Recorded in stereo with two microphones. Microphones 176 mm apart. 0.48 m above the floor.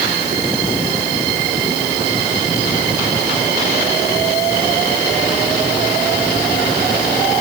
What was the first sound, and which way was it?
Only background noise.